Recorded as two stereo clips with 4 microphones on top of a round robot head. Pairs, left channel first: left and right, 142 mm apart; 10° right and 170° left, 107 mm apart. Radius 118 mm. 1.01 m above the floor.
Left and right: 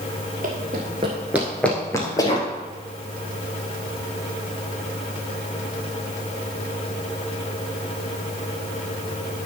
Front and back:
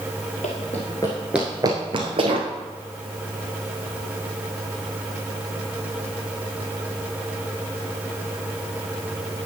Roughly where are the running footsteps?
Ahead right.